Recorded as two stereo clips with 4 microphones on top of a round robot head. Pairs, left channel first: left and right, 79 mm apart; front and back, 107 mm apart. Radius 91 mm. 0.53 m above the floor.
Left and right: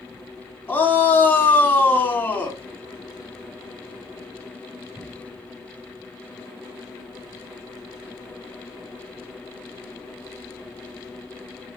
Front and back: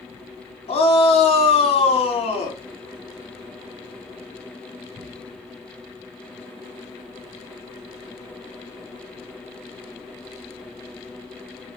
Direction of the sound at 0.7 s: 25° left.